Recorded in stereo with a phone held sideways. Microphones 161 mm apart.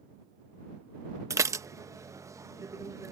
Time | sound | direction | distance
1.3 | dishes clattering | 20° right (ahead or behind) | ?